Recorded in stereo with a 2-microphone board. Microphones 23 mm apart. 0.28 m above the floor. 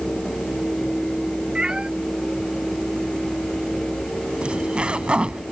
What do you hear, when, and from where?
1.6 s a cat meowing: 45° right (ahead or behind)
4.4 s a zipper: 55° right (ahead or behind)